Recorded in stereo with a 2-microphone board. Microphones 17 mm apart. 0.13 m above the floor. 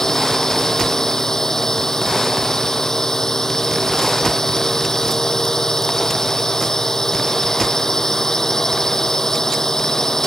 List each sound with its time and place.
0.0 s a drone: 35° left (ahead or behind)